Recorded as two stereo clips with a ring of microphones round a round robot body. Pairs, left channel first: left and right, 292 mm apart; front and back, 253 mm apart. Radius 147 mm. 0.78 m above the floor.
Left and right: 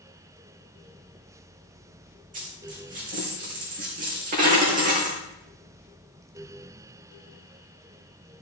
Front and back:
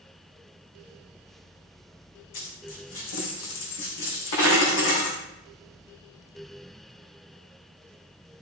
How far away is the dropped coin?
About 3.5 m.